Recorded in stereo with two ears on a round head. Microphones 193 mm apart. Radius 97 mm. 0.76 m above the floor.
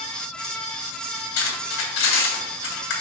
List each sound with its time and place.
1.4 s cutlery clinking: 65° left (ahead or behind), 3 m